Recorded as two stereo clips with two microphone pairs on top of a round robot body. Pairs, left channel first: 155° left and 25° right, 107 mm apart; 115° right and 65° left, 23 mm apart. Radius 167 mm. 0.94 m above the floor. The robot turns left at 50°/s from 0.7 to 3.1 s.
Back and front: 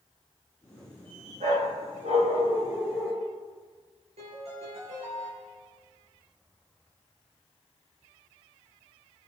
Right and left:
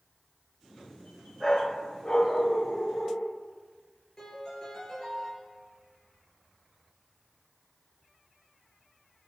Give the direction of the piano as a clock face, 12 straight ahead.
2 o'clock.